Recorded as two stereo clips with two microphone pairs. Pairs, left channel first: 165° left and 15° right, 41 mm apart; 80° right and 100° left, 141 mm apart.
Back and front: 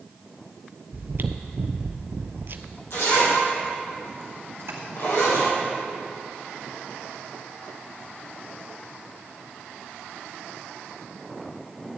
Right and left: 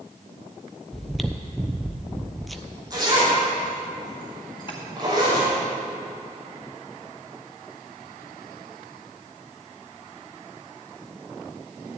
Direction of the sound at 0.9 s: 10° left.